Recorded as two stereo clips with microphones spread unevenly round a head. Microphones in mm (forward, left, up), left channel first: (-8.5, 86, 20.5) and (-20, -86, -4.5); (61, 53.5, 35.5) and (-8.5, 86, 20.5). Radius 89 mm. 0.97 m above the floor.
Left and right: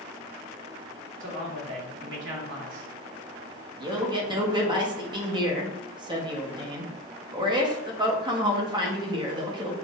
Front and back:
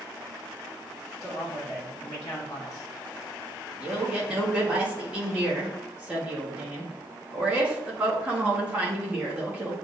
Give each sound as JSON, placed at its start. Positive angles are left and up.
{"t": 1.2, "sound": "a man speaking", "azimuth_deg": -90, "distance_m": 1.6}
{"t": 3.8, "sound": "a man speaking", "azimuth_deg": -145, "distance_m": 1.1}